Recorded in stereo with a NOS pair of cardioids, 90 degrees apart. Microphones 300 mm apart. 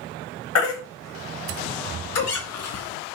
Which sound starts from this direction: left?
A baby crying, at 0.6 s.